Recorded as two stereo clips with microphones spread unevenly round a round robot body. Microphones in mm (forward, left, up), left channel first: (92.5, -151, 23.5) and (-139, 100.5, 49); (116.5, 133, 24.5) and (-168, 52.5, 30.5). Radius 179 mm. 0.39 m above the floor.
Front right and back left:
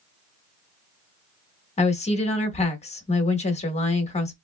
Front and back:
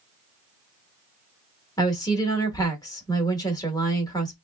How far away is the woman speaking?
About 1.0 m.